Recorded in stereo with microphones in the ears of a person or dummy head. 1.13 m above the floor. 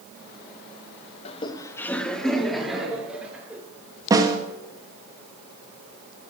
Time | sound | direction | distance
1.2 | laughter | 30° left (ahead or behind) | 0.9 m
4.1 | a snare drum | 15° right (ahead or behind) | 1.6 m